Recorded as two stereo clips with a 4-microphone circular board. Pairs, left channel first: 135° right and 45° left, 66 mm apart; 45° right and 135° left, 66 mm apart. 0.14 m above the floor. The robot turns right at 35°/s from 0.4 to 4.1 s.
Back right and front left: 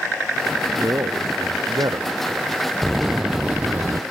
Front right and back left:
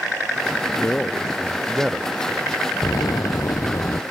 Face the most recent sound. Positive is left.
turn(degrees=-5)